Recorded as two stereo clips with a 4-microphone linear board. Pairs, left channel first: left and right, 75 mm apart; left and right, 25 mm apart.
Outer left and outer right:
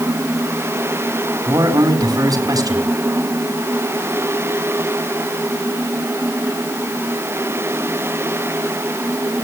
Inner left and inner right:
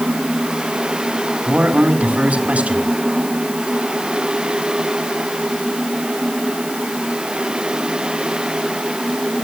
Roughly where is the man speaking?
Right.